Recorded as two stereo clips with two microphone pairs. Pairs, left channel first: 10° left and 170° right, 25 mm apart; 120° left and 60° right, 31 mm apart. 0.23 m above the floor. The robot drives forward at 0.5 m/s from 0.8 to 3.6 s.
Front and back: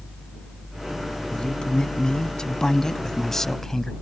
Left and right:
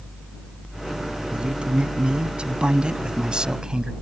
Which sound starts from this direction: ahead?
A man speaking, at 1.3 s.